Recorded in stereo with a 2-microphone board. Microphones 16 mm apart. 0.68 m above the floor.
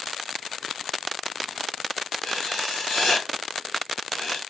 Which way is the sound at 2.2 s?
60° left (ahead or behind).